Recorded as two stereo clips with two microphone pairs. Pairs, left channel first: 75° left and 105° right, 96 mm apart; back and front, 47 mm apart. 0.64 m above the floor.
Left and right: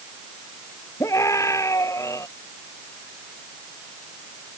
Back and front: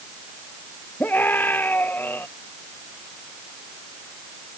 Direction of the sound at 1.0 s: 135° left.